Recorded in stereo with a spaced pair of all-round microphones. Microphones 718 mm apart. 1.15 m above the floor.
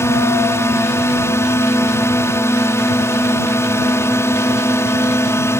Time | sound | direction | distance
0.0 | a drone | 5° left (ahead or behind) | ?